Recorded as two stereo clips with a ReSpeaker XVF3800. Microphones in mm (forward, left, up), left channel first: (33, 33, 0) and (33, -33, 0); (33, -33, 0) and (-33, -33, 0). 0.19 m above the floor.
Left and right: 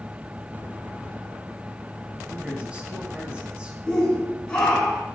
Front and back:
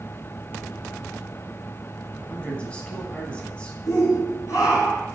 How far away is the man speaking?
About 1.5 m.